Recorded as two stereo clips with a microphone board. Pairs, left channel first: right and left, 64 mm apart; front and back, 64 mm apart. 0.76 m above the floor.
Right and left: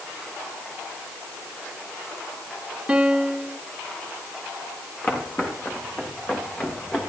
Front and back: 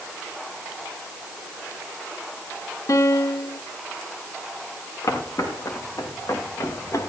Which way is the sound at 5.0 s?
30° right.